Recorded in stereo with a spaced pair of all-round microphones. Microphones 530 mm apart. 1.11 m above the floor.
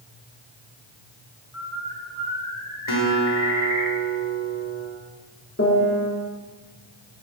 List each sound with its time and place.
1.5 s a bird: 80° left, 4.5 m
2.9 s a guitar: 65° left (ahead or behind), 3 m
5.6 s a piano: 25° left (ahead or behind), 4 m